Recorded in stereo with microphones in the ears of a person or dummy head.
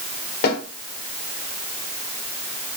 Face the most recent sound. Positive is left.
turn(degrees=50)  # may be behind; listen again after turning